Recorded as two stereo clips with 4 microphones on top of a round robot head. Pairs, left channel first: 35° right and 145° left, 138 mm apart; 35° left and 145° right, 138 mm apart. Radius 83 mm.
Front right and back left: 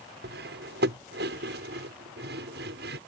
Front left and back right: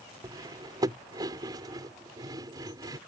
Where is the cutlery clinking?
150° left.